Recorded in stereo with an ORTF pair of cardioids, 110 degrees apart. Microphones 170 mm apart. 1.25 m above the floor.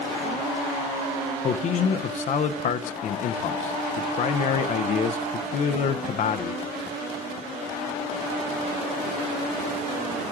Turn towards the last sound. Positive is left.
turn(degrees=45)